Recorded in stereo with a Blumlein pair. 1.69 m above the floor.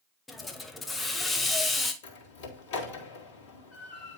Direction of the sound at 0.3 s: 10° left.